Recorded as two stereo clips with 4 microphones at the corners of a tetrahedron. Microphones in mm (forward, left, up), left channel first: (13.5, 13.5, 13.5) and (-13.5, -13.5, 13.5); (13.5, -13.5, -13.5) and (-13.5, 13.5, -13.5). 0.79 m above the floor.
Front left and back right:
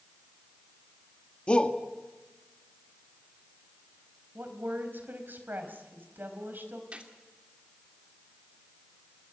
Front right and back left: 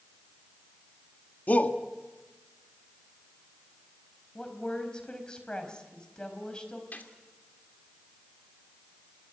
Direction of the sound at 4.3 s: 115° right.